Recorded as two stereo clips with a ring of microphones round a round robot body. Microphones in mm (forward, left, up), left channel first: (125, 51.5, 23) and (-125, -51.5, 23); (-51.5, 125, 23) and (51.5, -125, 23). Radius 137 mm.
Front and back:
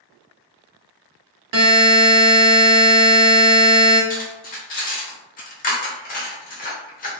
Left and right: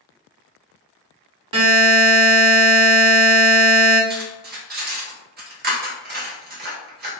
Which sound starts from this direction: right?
A buzzer, at 1.5 s.